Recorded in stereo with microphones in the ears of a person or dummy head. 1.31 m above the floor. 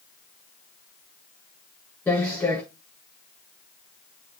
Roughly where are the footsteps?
Centre.